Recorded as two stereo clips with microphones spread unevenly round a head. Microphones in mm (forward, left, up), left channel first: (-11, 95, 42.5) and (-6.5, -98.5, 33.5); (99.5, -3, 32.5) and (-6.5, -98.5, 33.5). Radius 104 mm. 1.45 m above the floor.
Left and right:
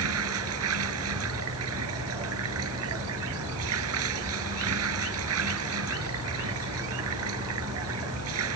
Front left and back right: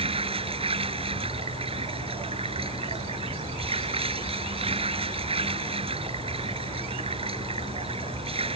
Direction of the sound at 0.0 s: 90° right.